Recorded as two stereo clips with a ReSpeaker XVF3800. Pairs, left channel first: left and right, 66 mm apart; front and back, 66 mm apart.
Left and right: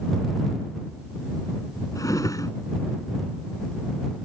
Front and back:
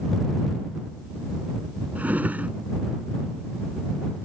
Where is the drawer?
115° left.